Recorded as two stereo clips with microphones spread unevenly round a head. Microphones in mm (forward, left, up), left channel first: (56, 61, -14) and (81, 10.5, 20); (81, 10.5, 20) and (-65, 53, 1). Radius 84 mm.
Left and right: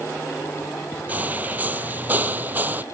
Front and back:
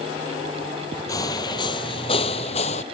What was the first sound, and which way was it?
Footsteps, 80° right.